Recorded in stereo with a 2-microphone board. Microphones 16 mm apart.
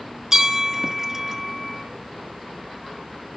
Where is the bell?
30° right (ahead or behind), 0.7 m.